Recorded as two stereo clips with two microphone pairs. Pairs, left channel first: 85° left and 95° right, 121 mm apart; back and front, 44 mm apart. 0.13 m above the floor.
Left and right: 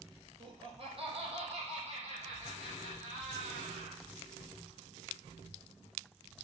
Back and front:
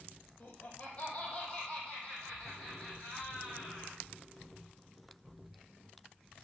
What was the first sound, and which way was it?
Laughter, 135° right.